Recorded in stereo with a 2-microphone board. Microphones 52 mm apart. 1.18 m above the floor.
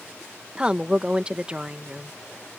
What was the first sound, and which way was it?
A woman speaking, 20° right (ahead or behind).